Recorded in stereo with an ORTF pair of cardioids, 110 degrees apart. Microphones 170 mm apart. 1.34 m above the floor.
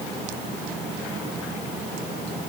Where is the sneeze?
I don't hear a sneeze.